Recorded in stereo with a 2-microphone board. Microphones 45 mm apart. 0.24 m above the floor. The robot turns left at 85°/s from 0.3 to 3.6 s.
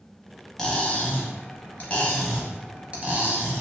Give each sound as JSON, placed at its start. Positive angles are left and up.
{"t": 0.6, "sound": "cutlery clinking", "azimuth_deg": 165, "distance_m": 0.7}